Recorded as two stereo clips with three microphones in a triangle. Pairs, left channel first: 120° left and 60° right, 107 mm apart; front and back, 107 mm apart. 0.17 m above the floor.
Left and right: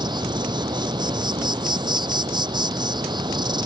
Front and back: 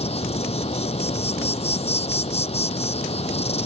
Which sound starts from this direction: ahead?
An insect, at 0.0 s.